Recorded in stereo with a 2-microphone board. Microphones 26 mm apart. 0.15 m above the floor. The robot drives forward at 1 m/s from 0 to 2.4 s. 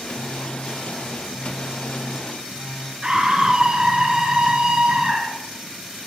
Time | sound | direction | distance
0.1 | a phone buzzing | 10° left (ahead or behind) | 8.5 m
3.0 | a scream | 30° right (ahead or behind) | 1.9 m